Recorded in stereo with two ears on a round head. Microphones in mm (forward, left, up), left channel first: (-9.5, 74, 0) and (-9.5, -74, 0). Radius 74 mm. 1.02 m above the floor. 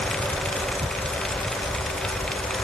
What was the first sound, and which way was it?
Ticking, 60° right (ahead or behind).